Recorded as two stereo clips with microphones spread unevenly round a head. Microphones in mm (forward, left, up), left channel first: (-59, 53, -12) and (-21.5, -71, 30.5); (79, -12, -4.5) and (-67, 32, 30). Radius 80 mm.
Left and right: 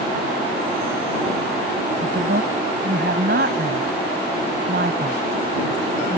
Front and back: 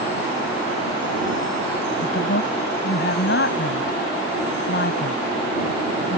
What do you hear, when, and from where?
2.0 s a woman speaking: 45° right